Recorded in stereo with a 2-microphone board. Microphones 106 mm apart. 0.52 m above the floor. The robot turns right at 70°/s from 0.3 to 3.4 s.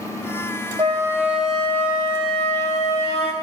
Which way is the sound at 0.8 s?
45° right.